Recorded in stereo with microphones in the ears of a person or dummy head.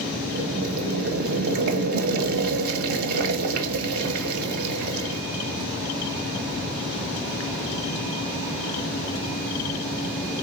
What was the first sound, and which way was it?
Boiling, 55° right (ahead or behind).